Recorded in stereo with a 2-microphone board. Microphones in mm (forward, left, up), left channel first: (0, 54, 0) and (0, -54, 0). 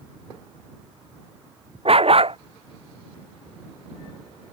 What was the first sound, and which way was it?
A dog barking, 55° right (ahead or behind).